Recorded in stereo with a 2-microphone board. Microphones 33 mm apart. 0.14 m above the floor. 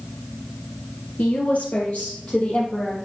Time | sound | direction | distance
1.2 | a woman speaking | 50° left (ahead or behind) | 2.5 m